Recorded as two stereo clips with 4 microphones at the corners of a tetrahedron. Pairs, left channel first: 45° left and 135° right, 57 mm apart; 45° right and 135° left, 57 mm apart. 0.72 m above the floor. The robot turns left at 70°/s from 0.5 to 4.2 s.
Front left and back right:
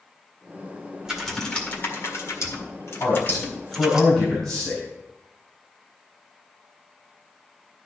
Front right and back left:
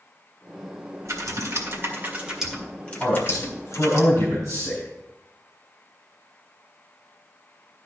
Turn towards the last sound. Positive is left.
turn(degrees=-45)